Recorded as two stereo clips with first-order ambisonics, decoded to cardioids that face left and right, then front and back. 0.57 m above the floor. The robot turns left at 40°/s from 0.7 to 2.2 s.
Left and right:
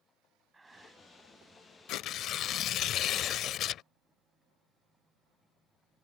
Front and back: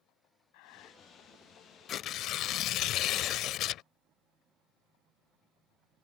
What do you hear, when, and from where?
0.5 s breathing: 10° right; by 1.0 s 25° right
1.9 s tearing paper: 55° left; by 3.8 s 40° left